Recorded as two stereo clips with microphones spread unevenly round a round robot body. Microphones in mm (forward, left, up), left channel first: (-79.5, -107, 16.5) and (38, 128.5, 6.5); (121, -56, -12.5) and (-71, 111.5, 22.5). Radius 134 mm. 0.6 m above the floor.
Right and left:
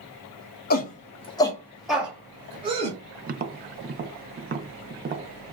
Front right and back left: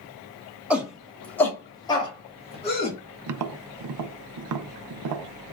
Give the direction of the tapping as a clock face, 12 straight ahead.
8 o'clock.